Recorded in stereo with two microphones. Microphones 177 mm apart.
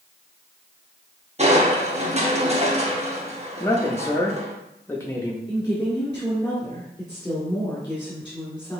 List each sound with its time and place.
1.4 s crushing: 40° right (ahead or behind), 0.8 m
3.6 s a man speaking: 15° left (ahead or behind), 0.5 m
5.5 s a woman speaking: 10° left (ahead or behind), 1.4 m